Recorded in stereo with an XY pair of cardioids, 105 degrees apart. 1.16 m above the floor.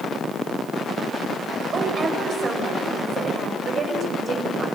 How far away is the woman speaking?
About 4.5 m.